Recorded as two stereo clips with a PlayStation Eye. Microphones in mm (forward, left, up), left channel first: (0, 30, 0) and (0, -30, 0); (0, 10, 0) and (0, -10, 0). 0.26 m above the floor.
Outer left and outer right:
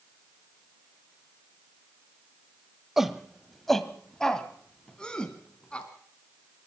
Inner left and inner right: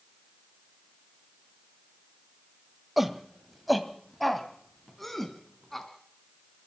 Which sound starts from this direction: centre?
A shout, at 3.0 s.